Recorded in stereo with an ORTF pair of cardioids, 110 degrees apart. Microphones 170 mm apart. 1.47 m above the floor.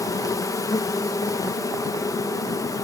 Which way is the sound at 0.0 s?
20° left.